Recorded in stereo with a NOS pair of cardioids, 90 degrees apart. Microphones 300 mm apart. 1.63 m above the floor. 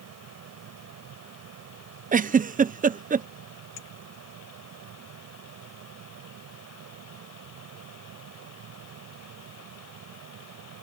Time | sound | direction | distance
0.0 | a fan | 65° right | ?
2.1 | a giggle | 30° right | ?
3.8 | a clink | 55° left | ?